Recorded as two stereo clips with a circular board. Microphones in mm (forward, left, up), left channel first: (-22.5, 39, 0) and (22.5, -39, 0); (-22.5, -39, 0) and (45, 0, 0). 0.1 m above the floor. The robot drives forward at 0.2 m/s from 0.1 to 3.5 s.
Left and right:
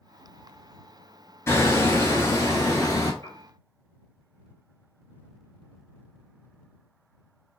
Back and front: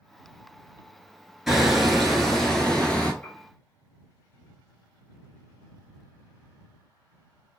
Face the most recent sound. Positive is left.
turn(degrees=150)